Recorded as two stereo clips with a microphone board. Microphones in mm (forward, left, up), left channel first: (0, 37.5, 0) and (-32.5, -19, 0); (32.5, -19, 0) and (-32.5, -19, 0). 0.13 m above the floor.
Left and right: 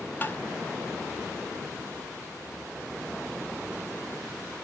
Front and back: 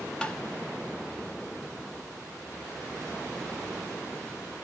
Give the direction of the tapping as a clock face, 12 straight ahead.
10 o'clock.